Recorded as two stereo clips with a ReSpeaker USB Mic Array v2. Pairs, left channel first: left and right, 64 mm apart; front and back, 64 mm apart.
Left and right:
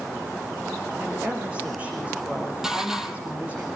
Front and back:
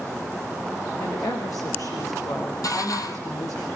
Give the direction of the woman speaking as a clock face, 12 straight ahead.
1 o'clock.